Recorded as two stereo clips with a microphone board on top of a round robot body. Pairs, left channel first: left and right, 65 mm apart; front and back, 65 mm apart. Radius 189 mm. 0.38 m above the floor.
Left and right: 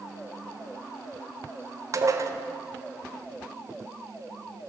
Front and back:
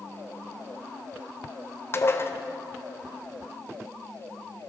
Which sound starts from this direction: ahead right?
Dishes clattering, at 1.9 s.